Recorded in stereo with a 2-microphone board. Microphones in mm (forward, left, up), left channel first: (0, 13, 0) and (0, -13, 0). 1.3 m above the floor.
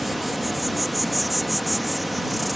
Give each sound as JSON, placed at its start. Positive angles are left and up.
{"t": 0.0, "sound": "an insect", "side_deg": 0}